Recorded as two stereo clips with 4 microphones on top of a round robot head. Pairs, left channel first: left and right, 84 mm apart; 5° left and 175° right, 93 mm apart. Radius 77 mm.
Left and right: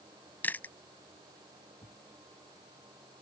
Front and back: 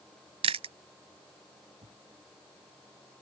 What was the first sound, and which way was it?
Chewing, 165° left.